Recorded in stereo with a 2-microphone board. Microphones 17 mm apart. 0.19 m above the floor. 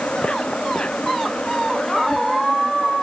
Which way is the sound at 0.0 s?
70° left (ahead or behind).